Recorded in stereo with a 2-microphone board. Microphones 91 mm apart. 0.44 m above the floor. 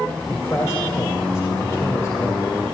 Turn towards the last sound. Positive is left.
turn(degrees=40)  # may be behind; listen again after turning